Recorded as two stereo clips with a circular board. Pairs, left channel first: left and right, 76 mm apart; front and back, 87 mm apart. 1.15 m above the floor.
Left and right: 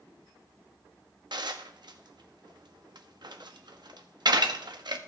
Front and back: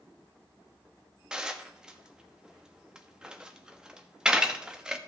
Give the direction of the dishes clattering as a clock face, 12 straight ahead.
3 o'clock.